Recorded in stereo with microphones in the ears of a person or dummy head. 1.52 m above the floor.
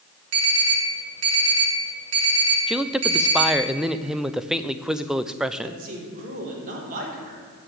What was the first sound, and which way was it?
An alarm, 75° right (ahead or behind).